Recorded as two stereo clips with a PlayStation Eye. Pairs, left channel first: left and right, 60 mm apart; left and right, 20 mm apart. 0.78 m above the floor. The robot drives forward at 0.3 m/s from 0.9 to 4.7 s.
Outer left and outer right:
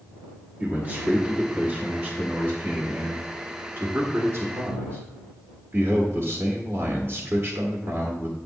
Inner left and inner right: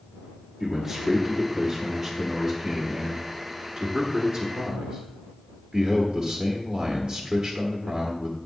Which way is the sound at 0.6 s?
25° right (ahead or behind).